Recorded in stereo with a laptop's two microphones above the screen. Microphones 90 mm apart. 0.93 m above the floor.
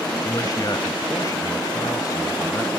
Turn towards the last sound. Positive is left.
turn(degrees=45)  # may be behind; listen again after turning